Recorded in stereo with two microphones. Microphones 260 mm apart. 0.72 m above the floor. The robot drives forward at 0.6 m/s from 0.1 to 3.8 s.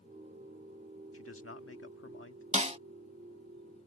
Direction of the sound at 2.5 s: 25° right (ahead or behind).